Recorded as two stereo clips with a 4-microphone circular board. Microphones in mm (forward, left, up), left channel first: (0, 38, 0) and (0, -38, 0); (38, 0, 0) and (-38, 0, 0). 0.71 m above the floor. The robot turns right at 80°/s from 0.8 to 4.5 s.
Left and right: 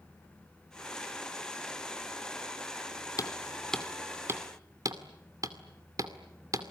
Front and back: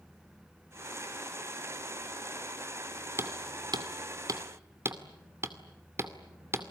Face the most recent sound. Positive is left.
turn(degrees=-130)